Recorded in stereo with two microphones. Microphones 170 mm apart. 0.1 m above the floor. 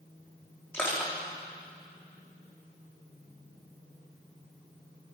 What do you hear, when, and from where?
0.7 s crushing: 15° left (ahead or behind), 5 m